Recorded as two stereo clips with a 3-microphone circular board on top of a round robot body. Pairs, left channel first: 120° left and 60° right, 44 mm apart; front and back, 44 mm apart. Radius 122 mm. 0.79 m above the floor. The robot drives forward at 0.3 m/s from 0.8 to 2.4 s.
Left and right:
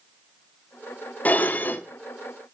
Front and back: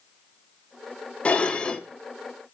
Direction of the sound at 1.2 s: 65° left.